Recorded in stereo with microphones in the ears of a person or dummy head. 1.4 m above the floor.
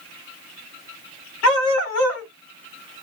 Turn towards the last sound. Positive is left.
turn(degrees=60)  # may be behind; listen again after turning